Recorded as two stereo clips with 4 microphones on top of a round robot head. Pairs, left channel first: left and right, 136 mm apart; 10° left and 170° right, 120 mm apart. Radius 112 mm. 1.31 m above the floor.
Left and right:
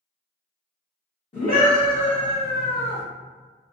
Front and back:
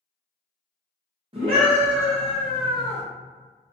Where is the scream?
145° left, 0.9 m.